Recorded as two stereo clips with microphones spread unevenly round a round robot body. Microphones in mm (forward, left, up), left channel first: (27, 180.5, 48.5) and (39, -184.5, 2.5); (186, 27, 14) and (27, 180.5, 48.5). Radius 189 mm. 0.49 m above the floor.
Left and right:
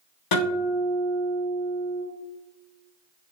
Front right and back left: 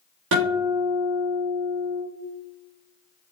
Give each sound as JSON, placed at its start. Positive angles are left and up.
{"t": 0.3, "sound": "a guitar", "azimuth_deg": 130, "distance_m": 4.5}